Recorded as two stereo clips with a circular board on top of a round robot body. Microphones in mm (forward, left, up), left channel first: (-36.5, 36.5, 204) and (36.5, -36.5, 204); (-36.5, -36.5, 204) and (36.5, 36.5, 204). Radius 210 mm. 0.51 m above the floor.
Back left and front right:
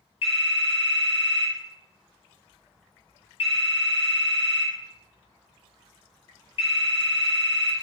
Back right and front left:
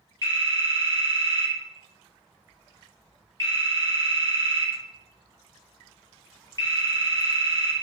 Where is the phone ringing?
165° left, 2.5 m.